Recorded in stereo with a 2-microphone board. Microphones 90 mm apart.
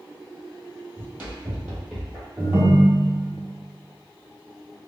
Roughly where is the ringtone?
Right.